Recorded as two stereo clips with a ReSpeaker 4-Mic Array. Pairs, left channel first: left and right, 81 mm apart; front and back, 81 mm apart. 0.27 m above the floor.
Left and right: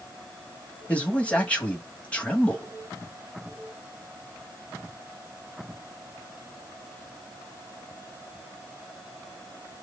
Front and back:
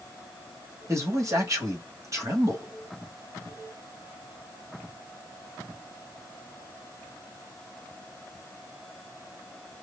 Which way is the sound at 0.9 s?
160° left.